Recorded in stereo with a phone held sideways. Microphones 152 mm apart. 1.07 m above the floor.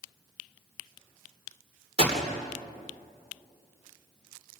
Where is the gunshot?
45° right (ahead or behind), 3 m.